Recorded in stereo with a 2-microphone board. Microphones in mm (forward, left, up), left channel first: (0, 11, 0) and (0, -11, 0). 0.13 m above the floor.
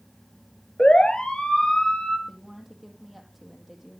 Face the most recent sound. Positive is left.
turn(degrees=0)  # may be behind; listen again after turning